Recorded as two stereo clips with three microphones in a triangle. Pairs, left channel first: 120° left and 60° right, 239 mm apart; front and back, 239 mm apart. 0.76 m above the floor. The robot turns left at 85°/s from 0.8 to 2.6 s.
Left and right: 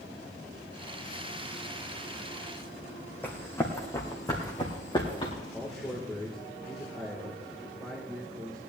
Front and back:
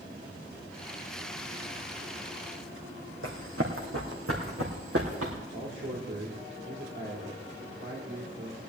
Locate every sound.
3.2 s running footsteps: 160° right, 2.5 m; by 5.3 s 170° right, 3.5 m
5.5 s a man speaking: 155° right, 2.5 m